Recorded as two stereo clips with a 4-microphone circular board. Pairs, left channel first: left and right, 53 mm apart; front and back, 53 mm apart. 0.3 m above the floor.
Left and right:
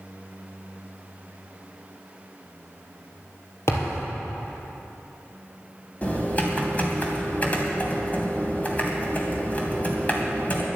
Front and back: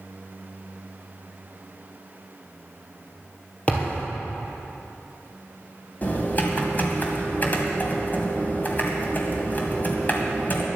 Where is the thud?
65° left, 3 m.